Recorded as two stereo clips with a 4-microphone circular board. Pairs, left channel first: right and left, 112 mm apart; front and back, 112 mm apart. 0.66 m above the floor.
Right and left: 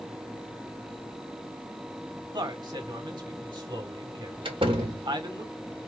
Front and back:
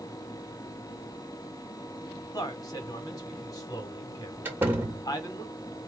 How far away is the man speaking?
About 1.5 m.